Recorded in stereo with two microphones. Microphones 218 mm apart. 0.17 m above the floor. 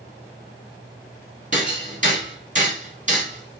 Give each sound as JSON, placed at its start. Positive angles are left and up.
{"t": 1.5, "sound": "hammering", "side_deg": -35, "distance_m": 1.0}